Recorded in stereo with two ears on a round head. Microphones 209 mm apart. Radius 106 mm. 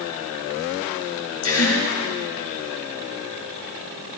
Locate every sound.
1.4 s a gasp: 75° left (ahead or behind), 3.5 m